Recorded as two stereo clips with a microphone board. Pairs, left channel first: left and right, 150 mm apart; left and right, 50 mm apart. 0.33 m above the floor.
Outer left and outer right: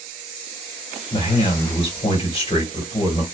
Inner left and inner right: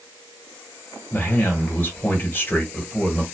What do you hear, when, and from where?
1.1 s a man speaking: 35° left (ahead or behind), 2 m